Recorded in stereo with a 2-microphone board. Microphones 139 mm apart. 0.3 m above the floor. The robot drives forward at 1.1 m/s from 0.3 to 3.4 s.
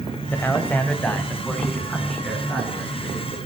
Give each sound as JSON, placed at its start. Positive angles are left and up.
{"t": 0.3, "sound": "a man speaking", "side_deg": 15, "distance_m": 1.1}